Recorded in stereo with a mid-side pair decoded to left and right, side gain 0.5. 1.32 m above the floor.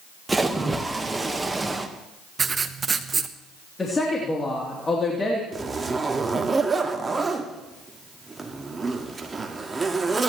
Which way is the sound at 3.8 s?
30° left.